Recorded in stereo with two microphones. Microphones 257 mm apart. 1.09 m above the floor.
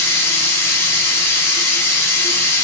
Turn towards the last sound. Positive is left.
turn(degrees=10)  # may be behind; listen again after turning